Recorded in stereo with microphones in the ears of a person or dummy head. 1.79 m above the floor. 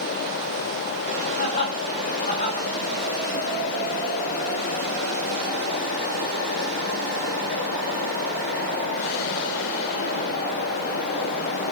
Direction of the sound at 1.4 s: 50° left (ahead or behind).